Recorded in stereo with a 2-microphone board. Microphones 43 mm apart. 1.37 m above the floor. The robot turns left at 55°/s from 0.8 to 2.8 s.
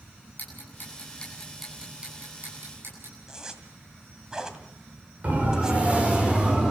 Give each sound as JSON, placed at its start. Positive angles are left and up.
{"t": 0.4, "sound": "ticking", "side_deg": 45, "distance_m": 9.0}
{"t": 3.3, "sound": "a zipper", "side_deg": -15, "distance_m": 1.9}
{"t": 5.2, "sound": "a siren", "side_deg": -35, "distance_m": 5.5}